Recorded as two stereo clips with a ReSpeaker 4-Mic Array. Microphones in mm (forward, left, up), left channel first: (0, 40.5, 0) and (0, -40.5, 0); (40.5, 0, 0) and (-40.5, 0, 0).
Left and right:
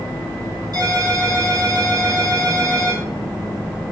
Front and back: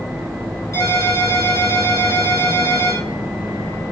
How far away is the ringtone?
About 4 m.